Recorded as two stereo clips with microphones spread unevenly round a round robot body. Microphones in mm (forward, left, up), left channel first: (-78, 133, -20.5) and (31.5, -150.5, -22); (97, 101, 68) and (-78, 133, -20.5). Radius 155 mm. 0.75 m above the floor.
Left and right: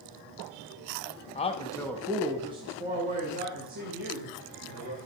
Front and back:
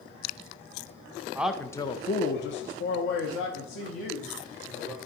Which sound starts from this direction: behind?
A man speaking, at 1.4 s.